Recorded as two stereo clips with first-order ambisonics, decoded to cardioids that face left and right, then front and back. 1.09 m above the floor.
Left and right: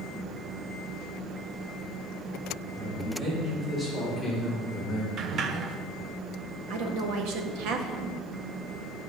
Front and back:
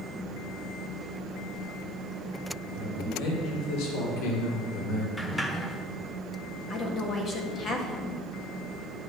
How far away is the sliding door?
About 0.7 m.